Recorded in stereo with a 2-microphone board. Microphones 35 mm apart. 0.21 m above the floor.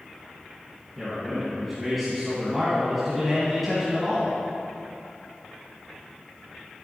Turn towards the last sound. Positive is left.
turn(degrees=0)  # may be behind; listen again after turning